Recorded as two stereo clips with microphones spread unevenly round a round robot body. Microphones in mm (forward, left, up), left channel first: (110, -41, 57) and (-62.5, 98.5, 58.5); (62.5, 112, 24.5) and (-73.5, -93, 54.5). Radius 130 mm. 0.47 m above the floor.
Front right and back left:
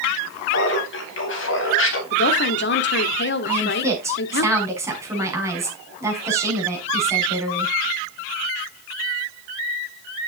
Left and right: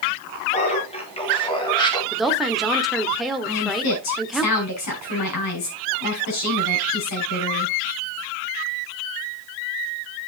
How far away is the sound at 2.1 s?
About 1.3 m.